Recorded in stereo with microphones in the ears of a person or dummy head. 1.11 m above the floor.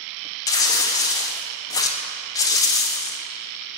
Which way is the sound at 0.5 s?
20° left (ahead or behind).